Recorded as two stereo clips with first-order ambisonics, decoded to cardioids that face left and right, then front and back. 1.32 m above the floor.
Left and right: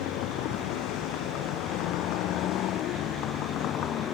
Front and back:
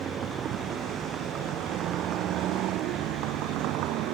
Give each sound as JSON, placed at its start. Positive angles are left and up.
{"t": 0.0, "sound": "a vehicle", "azimuth_deg": 120}